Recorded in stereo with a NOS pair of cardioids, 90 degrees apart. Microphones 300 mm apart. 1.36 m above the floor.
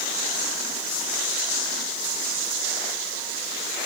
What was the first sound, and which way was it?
Only background noise.